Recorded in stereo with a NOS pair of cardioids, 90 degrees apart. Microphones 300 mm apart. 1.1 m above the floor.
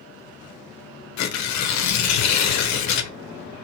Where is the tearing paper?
65° left, 0.5 m.